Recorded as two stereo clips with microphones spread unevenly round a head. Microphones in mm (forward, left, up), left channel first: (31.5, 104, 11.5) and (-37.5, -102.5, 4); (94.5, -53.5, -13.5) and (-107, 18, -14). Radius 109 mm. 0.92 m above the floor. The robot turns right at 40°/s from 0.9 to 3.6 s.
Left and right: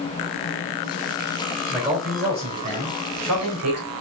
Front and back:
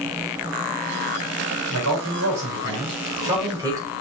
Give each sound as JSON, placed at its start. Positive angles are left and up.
{"t": 1.7, "sound": "a man speaking", "azimuth_deg": 160, "distance_m": 4.5}